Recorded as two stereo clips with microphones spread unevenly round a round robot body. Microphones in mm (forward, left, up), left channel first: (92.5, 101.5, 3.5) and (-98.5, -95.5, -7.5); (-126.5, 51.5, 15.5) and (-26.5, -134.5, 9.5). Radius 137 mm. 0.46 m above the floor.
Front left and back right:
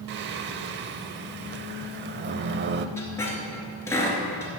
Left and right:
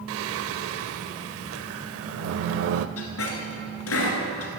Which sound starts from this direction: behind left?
A squeak, at 3.0 s.